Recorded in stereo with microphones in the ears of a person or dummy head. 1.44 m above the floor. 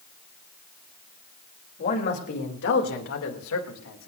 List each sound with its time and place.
1.8 s a man speaking: 45° left (ahead or behind), 3 m; by 4.1 s 85° left, 3 m